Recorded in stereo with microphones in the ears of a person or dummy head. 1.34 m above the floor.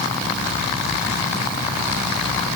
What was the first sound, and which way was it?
Only background noise.